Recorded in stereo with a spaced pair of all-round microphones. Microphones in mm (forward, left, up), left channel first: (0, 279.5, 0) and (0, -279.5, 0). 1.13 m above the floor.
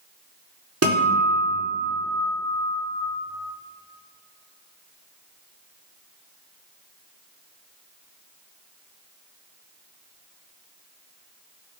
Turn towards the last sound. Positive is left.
turn(degrees=-25)  # may be behind; listen again after turning